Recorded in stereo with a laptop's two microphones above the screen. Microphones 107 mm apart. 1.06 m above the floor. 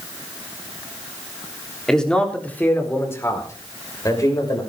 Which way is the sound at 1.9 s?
5° left (ahead or behind).